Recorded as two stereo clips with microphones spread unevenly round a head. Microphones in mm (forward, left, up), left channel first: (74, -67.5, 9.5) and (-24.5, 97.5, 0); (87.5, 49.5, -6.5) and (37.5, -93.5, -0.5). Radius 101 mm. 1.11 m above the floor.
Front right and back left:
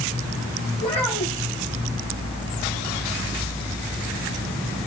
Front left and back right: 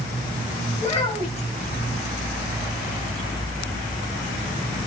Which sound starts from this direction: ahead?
A child speaking, at 0.8 s.